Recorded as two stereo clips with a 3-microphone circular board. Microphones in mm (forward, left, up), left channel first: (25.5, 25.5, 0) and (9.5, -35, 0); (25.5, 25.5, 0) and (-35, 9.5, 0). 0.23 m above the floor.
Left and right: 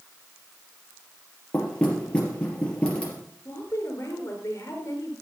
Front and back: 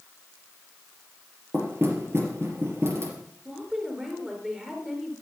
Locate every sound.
1.5 s knocking: 150° left, 3.5 m
3.5 s a woman speaking: 115° left, 4 m